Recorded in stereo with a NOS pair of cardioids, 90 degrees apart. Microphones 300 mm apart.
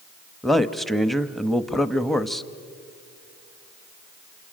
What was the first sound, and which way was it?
A man speaking, straight ahead.